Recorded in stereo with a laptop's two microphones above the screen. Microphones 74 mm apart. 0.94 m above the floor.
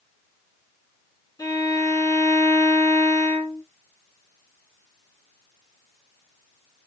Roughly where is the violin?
Left.